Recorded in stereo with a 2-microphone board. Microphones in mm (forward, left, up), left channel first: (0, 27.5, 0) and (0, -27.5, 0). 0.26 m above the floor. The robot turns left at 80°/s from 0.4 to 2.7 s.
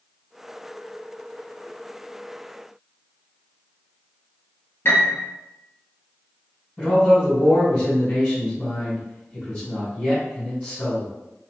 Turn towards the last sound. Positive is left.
turn(degrees=5)  # may be behind; listen again after turning